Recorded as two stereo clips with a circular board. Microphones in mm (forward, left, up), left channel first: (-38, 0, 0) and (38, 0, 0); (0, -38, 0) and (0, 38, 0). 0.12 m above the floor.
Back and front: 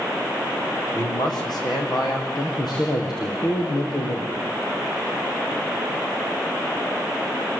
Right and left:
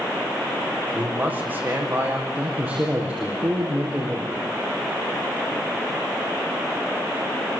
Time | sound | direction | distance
0.9 | a man speaking | 160° left | 8 m
2.3 | a man speaking | 165° left | 5.5 m